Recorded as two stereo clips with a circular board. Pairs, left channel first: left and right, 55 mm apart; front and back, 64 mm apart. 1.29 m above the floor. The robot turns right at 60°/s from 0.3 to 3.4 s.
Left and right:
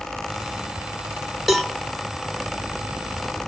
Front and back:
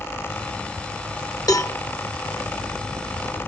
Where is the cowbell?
5° right, 1.2 m; by 1.8 s 15° left, 1.2 m.